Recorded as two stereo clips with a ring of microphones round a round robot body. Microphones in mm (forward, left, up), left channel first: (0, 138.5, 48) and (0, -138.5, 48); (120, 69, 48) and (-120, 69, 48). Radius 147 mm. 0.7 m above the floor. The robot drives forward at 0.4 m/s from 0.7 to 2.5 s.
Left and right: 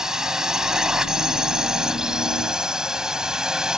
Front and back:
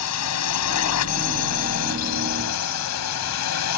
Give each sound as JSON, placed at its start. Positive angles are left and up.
{"t": 0.0, "sound": "a drone", "azimuth_deg": -5}